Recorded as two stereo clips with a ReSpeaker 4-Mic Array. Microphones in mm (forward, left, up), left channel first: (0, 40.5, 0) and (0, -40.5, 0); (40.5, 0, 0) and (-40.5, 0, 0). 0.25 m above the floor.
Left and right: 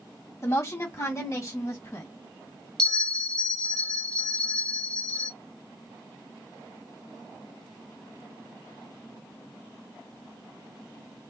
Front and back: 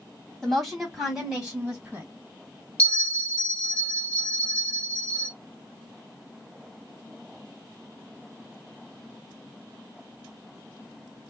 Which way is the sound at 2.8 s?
35° left.